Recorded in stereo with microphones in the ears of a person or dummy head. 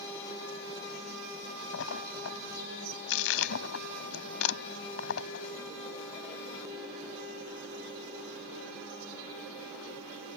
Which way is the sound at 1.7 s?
85° left.